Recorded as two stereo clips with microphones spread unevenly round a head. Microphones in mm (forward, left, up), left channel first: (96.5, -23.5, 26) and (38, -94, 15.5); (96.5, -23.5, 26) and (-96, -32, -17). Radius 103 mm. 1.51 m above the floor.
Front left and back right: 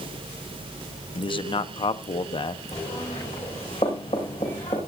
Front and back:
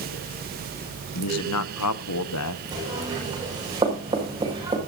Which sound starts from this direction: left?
Knocking, at 2.7 s.